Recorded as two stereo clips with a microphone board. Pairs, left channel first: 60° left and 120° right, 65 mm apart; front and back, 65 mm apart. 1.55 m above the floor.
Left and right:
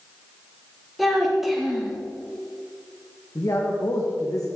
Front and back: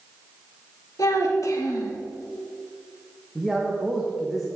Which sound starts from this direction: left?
A man speaking, at 3.4 s.